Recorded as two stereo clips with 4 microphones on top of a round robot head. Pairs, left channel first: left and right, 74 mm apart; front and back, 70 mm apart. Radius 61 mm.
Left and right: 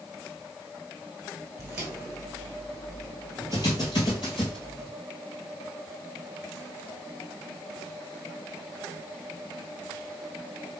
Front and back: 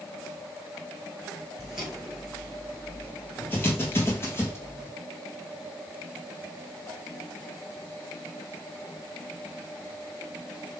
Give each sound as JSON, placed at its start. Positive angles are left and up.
{"t": 1.6, "sound": "footsteps", "azimuth_deg": -120, "distance_m": 1.2}